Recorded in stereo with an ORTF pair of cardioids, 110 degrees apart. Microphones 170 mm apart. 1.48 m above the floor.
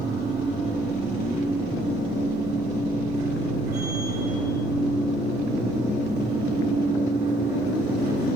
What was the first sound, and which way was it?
A machine running, 70° right.